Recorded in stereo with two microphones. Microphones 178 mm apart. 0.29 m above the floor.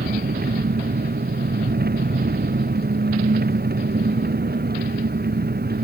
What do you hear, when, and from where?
0.0 s an engine running: 65° right (ahead or behind)